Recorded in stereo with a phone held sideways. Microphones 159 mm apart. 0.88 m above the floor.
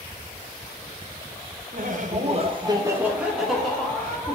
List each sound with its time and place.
1.7 s laughter: 60° right (ahead or behind), 0.7 m; by 4.4 s 15° left (ahead or behind), 1.3 m